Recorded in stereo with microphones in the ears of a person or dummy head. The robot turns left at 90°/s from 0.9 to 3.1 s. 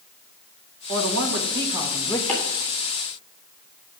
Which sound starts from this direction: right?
A man speaking, at 0.9 s.